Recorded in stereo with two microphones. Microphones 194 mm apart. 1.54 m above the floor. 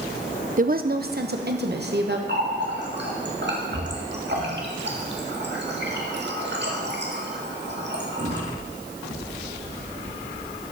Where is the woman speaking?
45° right (ahead or behind), 0.5 m; by 2.2 s 60° right (ahead or behind), 1.4 m.